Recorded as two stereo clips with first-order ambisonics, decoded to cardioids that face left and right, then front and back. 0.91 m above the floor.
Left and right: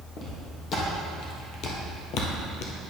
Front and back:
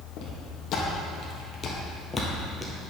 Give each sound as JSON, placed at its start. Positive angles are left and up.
{"t": 0.2, "sound": "footsteps", "azimuth_deg": 35, "distance_m": 2.0}